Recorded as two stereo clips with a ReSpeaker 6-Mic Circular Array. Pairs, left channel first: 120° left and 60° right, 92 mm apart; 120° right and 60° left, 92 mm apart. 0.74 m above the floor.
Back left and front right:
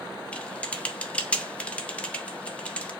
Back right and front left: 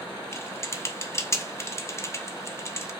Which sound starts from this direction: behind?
Typing on a keyboard, at 0.3 s.